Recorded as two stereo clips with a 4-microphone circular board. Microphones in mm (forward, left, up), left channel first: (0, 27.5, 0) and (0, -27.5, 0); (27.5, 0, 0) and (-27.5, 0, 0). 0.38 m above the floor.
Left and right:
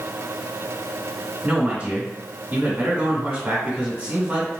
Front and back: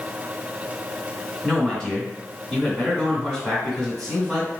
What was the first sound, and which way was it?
A man speaking, 80° right.